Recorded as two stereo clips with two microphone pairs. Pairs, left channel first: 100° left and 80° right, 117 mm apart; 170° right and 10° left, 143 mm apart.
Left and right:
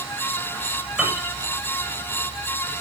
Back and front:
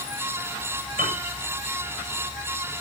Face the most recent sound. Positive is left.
turn(degrees=0)